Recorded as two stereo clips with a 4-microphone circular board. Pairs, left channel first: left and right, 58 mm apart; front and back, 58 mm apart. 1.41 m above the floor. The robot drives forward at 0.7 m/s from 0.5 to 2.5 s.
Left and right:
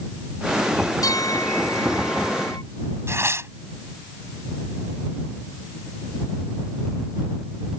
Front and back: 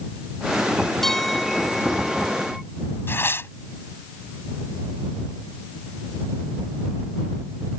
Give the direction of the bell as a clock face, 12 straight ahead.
9 o'clock.